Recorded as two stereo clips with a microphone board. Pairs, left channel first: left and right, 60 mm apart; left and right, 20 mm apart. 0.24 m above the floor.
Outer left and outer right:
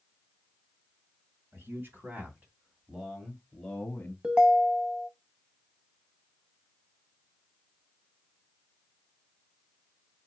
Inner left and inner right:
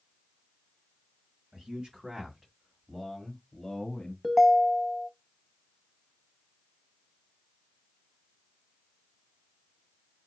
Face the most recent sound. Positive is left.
turn(degrees=-15)  # may be behind; listen again after turning